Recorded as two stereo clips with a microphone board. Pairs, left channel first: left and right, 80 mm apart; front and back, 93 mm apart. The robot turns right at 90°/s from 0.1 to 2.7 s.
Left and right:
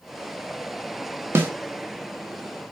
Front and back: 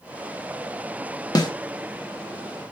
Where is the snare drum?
35° right, 0.6 m; by 1.5 s 20° right, 0.6 m.